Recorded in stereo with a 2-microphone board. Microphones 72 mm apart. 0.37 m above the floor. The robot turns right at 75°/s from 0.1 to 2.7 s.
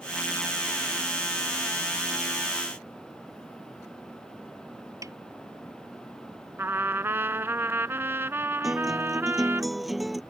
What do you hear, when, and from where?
5.0 s a snare drum: 50° right (ahead or behind)
6.6 s a trumpet: 35° right (ahead or behind)
8.6 s a guitar: centre (ahead or behind)